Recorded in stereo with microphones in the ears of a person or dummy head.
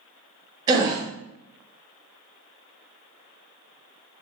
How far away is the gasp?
About 0.6 m.